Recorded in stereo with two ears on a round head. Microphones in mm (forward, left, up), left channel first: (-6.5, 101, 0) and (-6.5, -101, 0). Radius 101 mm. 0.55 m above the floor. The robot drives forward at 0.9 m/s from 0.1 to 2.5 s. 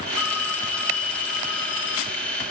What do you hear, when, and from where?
0.2 s a phone ringing: 80° left, 3 m; by 2.2 s 60° left (ahead or behind), 3.5 m